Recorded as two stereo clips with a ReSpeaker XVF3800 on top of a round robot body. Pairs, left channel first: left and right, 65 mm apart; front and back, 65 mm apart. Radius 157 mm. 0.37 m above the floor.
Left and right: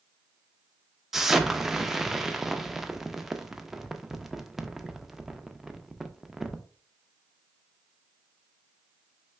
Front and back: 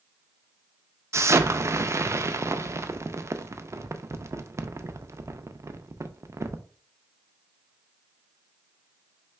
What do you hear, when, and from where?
1.1 s an explosion: 175° right, 0.6 m